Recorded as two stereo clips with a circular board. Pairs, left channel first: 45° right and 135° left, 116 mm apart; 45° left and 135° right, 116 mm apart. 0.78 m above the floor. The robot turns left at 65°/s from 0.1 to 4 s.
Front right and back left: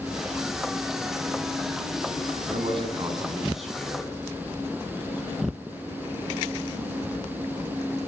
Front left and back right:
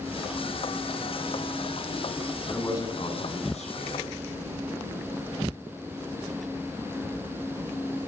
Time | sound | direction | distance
2.5 | a man speaking | 120° left | 9 m